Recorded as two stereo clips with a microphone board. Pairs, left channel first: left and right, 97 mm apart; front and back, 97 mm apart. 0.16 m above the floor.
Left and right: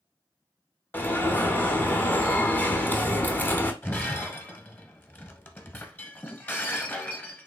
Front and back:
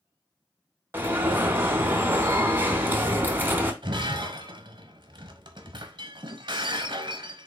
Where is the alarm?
135° left, 0.8 m.